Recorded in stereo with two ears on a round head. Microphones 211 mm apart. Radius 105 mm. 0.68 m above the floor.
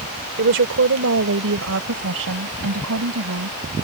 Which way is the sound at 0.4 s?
55° right (ahead or behind).